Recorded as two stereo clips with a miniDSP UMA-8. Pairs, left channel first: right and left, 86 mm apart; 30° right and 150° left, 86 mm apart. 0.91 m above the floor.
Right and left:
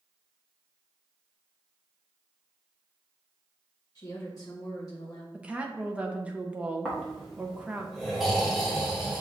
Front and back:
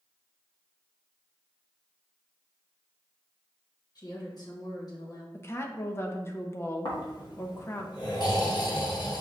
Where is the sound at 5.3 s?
20° left, 0.6 m.